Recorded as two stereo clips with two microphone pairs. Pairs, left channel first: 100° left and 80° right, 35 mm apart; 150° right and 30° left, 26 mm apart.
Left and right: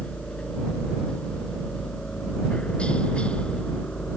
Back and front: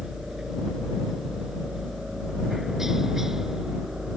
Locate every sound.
0.0 s a helicopter: 85° left